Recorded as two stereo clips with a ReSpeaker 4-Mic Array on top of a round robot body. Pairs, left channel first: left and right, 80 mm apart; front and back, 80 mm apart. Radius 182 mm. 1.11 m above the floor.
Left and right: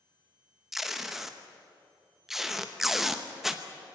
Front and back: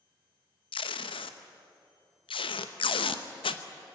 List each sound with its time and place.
0.7 s tape being pulled: 5° right, 0.9 m